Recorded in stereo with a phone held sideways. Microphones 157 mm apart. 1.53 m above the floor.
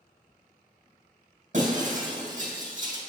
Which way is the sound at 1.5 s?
55° right (ahead or behind).